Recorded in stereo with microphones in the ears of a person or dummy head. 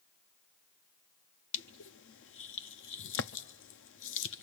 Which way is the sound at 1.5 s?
60° left (ahead or behind).